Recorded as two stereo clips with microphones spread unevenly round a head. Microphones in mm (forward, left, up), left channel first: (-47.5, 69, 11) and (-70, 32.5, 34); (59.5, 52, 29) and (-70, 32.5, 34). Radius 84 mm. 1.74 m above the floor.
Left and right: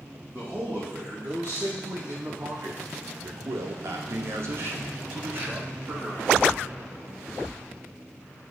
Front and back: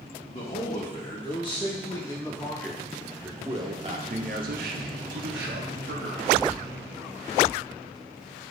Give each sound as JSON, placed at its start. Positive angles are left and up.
{"t": 0.3, "sound": "a man speaking", "azimuth_deg": -45, "distance_m": 2.0}